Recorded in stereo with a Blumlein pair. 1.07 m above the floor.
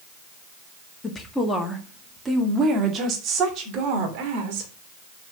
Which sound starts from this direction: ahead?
A woman speaking, at 1.0 s.